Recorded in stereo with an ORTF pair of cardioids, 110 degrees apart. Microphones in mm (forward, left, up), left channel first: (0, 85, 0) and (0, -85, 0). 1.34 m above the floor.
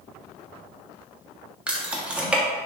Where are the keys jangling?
5° right, 0.6 m.